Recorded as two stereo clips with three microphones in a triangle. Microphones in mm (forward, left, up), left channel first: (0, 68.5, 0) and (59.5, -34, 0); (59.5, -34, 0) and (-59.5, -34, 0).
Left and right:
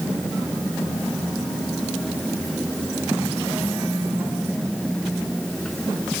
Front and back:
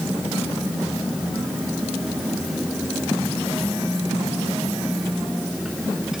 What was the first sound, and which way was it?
Only background noise.